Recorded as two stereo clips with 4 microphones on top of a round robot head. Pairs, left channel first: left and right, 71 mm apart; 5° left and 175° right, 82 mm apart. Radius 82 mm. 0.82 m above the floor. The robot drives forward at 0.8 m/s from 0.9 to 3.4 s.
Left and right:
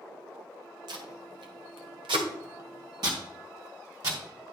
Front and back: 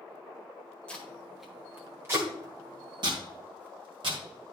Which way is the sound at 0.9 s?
70° right.